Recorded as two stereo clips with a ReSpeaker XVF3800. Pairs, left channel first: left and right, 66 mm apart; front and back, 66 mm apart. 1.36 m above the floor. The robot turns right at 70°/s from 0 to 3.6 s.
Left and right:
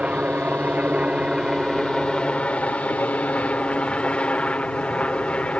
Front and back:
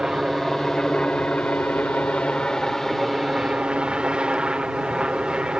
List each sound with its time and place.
0.0 s a helicopter: 120° right; by 5.6 s 130° left